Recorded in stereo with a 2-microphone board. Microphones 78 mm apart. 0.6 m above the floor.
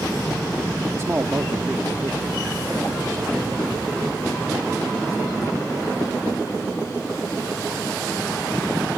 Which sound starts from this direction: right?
A man speaking, at 0.9 s.